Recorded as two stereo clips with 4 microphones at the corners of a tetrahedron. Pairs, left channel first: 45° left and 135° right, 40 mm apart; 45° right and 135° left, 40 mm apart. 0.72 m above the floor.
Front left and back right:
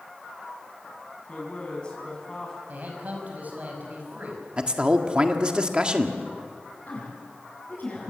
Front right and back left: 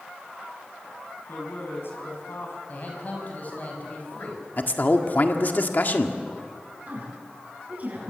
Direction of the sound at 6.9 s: 85° left.